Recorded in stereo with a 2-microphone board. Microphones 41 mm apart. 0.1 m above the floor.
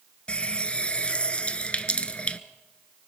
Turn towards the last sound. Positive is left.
turn(degrees=30)  # may be behind; listen again after turning